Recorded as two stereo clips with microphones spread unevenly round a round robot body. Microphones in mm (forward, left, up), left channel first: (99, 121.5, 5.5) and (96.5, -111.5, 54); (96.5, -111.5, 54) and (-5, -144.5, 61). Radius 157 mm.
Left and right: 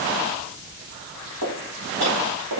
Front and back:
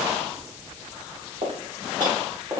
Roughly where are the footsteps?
Behind right.